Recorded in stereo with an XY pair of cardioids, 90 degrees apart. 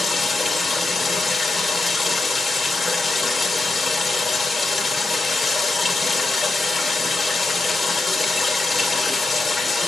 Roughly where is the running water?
Ahead left.